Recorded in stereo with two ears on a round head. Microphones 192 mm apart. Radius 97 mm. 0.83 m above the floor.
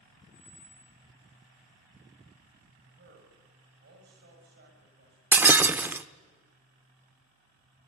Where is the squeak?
50° left (ahead or behind), 5.5 m.